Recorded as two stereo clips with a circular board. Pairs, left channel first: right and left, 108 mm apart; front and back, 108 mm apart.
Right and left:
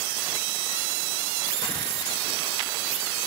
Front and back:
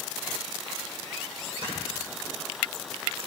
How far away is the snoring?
About 6.5 m.